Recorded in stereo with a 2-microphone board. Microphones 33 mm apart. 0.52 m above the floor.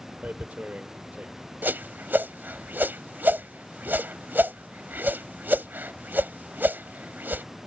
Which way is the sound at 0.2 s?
50° right (ahead or behind).